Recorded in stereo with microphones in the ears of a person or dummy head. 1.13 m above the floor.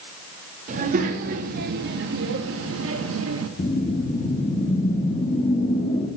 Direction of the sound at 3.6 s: 30° left (ahead or behind).